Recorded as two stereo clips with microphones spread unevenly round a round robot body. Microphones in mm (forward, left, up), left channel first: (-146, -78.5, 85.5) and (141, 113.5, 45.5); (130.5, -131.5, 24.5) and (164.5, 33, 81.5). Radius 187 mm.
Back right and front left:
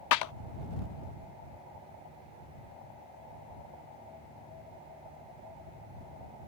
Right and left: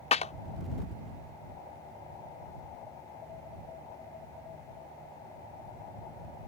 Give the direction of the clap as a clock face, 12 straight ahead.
4 o'clock.